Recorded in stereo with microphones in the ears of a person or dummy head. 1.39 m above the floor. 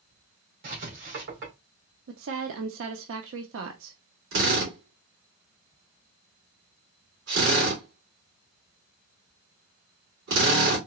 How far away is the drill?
About 3 m.